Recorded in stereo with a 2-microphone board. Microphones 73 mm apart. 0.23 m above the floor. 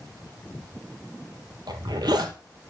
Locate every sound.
1.7 s a zipper: 70° right (ahead or behind), 1.3 m